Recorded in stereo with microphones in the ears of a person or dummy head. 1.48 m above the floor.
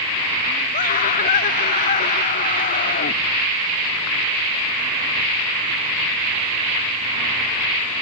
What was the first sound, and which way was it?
A scream, 40° left (ahead or behind).